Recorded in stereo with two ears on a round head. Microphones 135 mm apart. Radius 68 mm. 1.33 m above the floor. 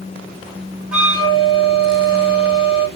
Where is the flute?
5° right (ahead or behind), 1.1 m.